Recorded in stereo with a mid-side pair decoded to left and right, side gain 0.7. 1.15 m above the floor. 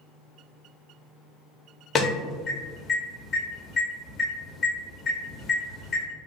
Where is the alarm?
25° left, 1.6 m.